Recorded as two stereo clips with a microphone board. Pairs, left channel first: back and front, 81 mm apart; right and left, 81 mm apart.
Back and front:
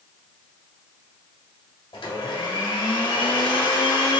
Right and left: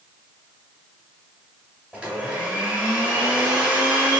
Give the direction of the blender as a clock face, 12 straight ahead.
6 o'clock.